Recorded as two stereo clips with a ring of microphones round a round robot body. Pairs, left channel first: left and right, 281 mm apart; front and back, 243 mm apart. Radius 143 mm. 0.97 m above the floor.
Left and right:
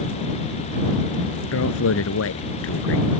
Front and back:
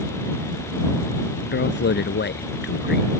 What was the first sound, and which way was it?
A man speaking, 45° left.